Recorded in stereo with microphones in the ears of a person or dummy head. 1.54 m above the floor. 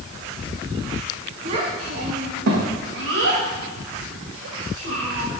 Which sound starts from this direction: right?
A child speaking, at 1.4 s.